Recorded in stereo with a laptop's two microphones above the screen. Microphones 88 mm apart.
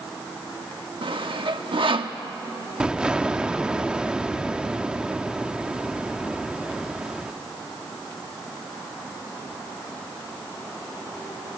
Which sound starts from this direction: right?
Sawing, at 1.0 s.